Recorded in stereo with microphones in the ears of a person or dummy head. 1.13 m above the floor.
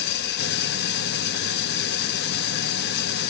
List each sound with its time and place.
0.0 s an engine running: 50° left (ahead or behind), 0.7 m